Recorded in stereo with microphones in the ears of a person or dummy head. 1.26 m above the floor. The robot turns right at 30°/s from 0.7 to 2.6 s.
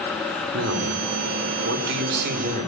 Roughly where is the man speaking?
Right.